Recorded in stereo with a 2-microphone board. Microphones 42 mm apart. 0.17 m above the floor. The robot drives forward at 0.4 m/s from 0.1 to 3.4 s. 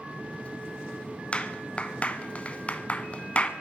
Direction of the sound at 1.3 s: 30° left (ahead or behind).